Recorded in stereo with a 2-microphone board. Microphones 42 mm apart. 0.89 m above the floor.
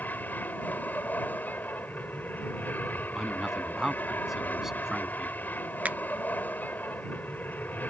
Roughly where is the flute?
No flute in this recording.